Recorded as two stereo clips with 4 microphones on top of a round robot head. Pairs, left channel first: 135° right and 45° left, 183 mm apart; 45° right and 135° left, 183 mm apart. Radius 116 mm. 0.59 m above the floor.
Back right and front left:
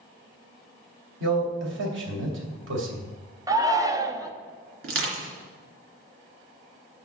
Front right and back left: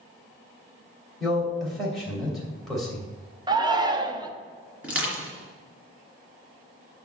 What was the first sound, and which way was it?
A man speaking, 40° left.